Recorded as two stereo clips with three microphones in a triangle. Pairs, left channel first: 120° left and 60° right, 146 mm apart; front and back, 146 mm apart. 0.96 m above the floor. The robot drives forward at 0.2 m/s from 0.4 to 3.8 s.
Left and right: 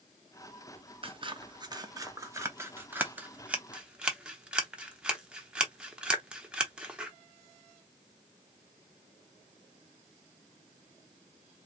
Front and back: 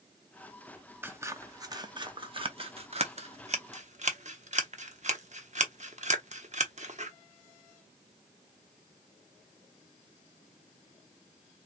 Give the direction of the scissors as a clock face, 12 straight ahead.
3 o'clock.